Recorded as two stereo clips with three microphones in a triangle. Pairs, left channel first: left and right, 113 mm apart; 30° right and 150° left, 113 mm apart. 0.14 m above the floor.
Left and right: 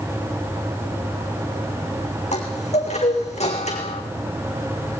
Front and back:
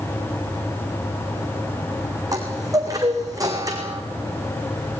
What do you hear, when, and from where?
2.3 s a chime: 95° left, 4.5 m